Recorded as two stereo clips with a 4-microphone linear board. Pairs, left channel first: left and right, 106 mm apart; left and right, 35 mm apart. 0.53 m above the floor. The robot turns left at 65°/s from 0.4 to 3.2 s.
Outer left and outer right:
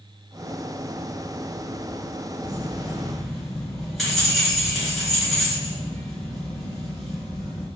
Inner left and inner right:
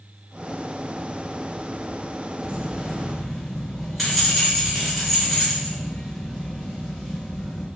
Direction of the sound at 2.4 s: 130° right.